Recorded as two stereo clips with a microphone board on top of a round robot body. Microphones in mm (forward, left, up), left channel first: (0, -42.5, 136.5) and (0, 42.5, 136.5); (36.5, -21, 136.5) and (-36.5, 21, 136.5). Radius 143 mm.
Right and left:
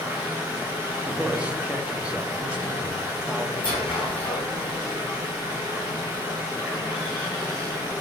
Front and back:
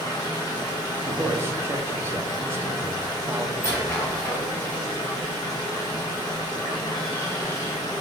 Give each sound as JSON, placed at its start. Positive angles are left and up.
{"t": 0.0, "sound": "running water", "azimuth_deg": 15, "distance_m": 0.7}
{"t": 1.0, "sound": "a man speaking", "azimuth_deg": 155, "distance_m": 0.6}
{"t": 3.6, "sound": "a squeak", "azimuth_deg": -90, "distance_m": 1.8}